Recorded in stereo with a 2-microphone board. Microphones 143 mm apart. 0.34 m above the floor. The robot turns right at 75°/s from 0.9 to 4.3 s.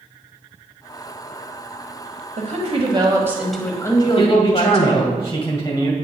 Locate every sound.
2.4 s a woman speaking: 85° right, 1.4 m; by 5.2 s 60° left, 1.4 m
4.2 s a man speaking: 35° left (ahead or behind), 2 m; by 5.9 s 25° left (ahead or behind), 2 m